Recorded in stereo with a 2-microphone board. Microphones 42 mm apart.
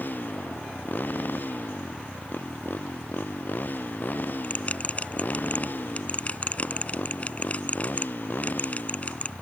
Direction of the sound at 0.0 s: 50° left (ahead or behind).